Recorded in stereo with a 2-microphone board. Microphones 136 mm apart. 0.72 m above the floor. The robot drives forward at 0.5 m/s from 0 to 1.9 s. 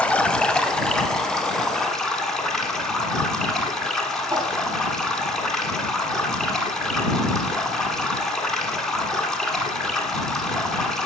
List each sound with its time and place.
0.0 s running water: 10° left (ahead or behind), 0.7 m; by 11.1 s 5° left (ahead or behind), 1.6 m
4.3 s a whoosh: 35° right (ahead or behind), 1.9 m